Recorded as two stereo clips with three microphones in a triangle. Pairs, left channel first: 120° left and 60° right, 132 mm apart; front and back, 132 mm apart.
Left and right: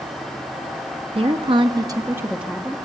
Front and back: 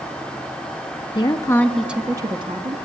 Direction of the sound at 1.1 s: 40° right.